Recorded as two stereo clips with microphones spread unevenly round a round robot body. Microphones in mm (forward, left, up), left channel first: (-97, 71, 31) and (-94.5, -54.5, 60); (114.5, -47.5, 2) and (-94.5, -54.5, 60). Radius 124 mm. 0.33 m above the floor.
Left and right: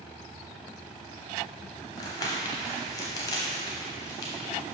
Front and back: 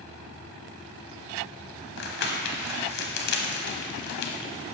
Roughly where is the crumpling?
Ahead left.